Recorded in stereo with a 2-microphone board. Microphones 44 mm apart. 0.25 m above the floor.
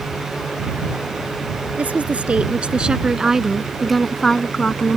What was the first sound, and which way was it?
A woman speaking, 35° right (ahead or behind).